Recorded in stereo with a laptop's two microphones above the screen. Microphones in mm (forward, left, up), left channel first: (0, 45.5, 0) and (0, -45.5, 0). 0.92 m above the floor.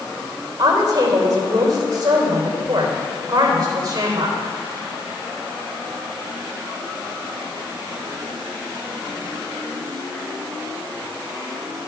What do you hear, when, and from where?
0.6 s a woman speaking: 45° right (ahead or behind), 3 m